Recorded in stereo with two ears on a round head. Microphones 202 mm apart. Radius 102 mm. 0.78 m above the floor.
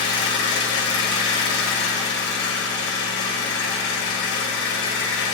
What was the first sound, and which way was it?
An engine running, 65° left (ahead or behind).